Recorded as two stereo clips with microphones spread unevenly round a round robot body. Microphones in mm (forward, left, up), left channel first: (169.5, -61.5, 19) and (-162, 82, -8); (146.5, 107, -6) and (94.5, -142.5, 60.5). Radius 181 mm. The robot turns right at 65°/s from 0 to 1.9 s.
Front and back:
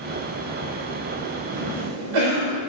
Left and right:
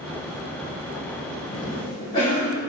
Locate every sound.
1.5 s a cough: 130° left, 3 m; by 2.6 s 155° left, 3 m